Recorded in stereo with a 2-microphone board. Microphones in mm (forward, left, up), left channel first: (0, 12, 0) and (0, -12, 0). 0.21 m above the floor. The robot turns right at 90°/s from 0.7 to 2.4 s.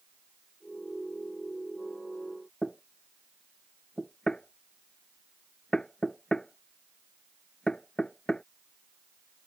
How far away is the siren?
I don't hear a siren.